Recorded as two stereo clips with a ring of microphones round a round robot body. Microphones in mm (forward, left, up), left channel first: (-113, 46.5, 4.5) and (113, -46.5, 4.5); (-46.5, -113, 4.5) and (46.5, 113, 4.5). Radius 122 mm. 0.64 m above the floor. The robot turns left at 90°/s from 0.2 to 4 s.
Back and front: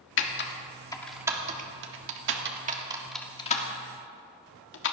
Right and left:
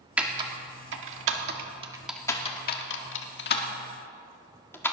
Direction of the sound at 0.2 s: 150° left.